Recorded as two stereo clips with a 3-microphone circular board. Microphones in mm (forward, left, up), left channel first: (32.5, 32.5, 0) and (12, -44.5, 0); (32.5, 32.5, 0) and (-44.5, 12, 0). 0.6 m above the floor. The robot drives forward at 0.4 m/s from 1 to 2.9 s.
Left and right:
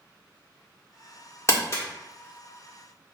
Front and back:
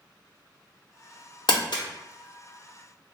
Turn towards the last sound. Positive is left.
turn(degrees=70)